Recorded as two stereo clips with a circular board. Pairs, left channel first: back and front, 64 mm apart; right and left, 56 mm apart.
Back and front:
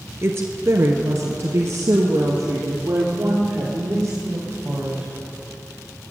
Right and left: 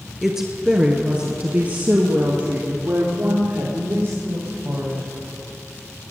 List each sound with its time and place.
0.2 s a woman speaking: 10° left, 1.5 m; by 5.1 s 55° left, 4 m